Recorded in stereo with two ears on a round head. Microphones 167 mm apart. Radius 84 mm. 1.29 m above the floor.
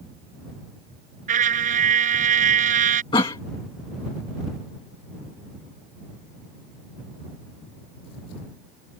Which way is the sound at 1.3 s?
40° right (ahead or behind).